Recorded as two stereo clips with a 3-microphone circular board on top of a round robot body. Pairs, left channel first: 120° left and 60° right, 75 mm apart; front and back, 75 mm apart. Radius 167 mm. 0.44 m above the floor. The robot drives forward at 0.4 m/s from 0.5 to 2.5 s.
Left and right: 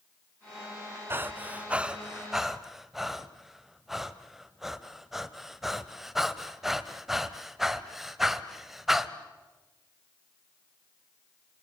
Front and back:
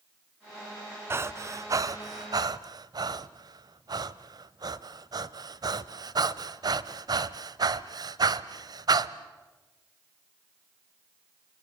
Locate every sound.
1.1 s breathing: 120° right, 0.7 m; by 9.2 s 145° right, 1.1 m